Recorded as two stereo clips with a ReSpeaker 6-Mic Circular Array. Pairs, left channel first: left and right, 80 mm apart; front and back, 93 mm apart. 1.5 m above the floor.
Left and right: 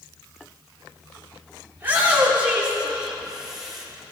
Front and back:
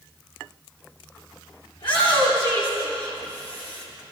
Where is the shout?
25° right, 3.5 m; by 3.9 s 5° right, 4.5 m.